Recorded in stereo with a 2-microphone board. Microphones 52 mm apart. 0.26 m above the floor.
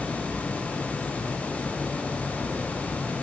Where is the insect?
10° right (ahead or behind), 1.6 m.